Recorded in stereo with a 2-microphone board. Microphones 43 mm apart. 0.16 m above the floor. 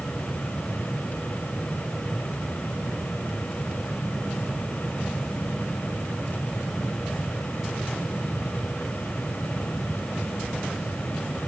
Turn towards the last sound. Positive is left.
No sound to turn to.